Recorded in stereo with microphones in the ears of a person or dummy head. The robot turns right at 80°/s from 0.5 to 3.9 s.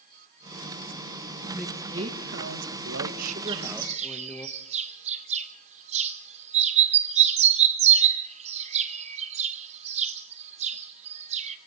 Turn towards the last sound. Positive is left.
turn(degrees=-40)  # may be behind; listen again after turning